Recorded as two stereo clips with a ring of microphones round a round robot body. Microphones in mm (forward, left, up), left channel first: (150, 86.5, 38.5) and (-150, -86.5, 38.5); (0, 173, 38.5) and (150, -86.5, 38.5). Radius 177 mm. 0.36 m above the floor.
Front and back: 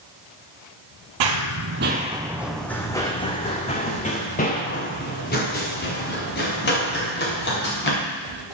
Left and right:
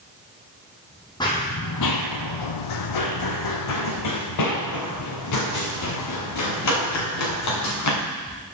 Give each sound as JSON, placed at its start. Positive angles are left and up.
{"t": 1.2, "sound": "running footsteps", "azimuth_deg": -160, "distance_m": 0.6}